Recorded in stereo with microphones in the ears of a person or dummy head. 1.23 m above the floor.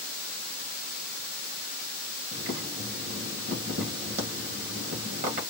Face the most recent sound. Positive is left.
turn(degrees=-45)  # may be behind; listen again after turning